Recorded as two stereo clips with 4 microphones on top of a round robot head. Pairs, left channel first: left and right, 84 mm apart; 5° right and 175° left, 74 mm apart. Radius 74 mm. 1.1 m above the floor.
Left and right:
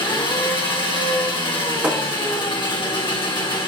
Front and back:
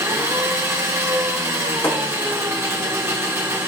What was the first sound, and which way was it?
An engine running, 120° left.